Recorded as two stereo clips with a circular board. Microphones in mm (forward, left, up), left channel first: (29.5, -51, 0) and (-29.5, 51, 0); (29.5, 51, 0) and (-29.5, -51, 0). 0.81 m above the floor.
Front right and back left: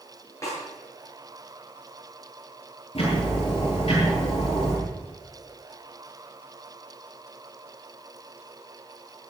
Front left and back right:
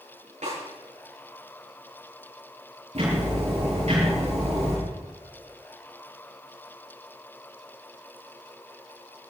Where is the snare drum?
125° right, 9 m.